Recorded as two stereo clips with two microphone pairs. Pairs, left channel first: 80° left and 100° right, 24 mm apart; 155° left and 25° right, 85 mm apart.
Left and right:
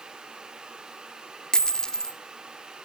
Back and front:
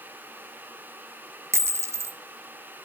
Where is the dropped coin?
25° left, 0.6 m.